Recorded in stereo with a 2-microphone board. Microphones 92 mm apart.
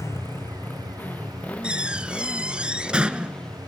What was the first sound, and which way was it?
A motorcycle, 30° left (ahead or behind).